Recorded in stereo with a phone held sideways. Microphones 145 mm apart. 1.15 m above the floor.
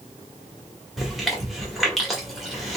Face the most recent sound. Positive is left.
turn(degrees=0)  # may be behind; listen again after turning